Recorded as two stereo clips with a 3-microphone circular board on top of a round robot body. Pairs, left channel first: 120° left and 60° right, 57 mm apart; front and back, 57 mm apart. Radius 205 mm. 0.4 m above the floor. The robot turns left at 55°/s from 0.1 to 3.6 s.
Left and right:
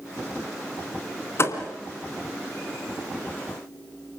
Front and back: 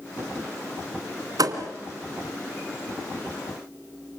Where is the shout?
I don't hear a shout.